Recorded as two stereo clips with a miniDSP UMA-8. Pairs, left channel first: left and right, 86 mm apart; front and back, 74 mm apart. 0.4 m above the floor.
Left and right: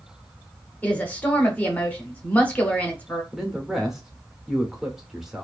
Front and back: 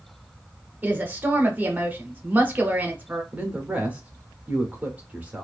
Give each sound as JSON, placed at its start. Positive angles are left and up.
{"t": 0.8, "sound": "a woman speaking", "azimuth_deg": 145, "distance_m": 0.9}
{"t": 3.3, "sound": "a man speaking", "azimuth_deg": -165, "distance_m": 0.8}